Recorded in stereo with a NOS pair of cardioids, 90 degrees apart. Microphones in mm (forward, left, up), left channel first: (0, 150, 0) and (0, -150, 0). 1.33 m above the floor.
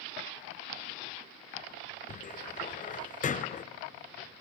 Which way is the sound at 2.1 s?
25° left.